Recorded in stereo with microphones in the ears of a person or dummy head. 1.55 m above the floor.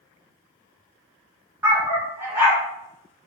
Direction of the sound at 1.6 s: 15° right (ahead or behind).